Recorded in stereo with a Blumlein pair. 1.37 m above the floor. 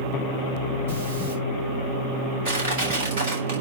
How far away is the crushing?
About 5 m.